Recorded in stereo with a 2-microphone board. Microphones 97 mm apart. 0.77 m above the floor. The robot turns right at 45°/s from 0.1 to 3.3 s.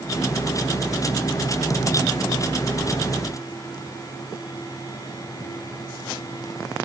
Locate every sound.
Only background noise.